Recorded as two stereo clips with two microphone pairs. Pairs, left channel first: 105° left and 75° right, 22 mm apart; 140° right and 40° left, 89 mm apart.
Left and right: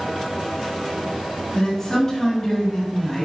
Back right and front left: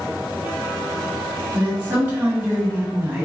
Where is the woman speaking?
65° left, 1.5 m.